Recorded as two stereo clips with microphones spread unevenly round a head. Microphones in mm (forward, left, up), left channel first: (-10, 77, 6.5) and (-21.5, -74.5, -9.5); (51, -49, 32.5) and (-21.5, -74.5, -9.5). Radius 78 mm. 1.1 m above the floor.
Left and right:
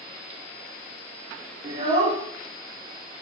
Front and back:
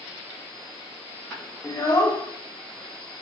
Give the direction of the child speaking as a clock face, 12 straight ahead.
1 o'clock.